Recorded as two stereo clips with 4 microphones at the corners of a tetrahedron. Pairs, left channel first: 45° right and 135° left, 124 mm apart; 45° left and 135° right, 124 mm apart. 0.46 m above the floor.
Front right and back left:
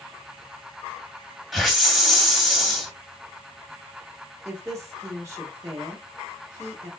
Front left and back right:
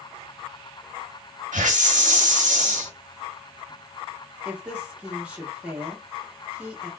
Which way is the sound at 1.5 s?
135° right.